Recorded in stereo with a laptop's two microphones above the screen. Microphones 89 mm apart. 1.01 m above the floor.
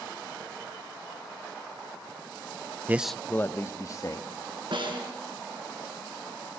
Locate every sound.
2.9 s a man speaking: 25° right (ahead or behind), 0.5 m; by 4.3 s 40° left (ahead or behind), 1.9 m
4.7 s a snare drum: 65° right (ahead or behind), 6 m